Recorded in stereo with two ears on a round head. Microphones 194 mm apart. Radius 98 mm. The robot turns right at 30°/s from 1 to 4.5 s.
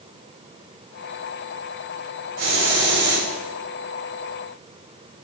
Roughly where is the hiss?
Right.